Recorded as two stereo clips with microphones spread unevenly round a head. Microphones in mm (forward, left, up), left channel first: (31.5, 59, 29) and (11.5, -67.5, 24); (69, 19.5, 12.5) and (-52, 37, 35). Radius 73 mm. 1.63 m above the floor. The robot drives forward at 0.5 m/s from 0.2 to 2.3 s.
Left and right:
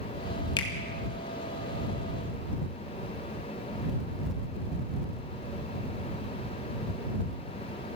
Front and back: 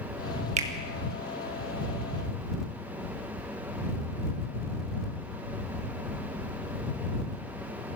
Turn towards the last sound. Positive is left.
turn(degrees=155)